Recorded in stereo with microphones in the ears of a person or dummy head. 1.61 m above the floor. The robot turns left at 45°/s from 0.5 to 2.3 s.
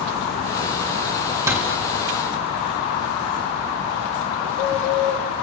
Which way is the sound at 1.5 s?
10° right (ahead or behind).